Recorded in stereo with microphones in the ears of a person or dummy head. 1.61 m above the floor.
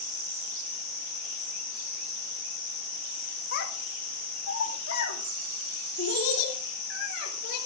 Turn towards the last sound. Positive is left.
turn(degrees=80)